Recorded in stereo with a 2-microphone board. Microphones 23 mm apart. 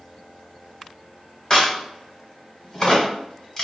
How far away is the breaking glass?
I don't hear breaking glass.